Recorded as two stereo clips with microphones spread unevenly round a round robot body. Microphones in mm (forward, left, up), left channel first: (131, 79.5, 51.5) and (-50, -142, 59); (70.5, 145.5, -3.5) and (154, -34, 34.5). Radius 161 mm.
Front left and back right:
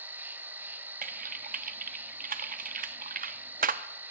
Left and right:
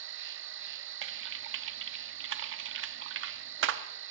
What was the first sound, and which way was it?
An insect, 45° right.